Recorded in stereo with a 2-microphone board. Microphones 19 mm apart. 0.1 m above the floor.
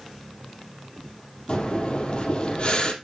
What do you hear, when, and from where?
1.5 s breathing: 50° left (ahead or behind), 3 m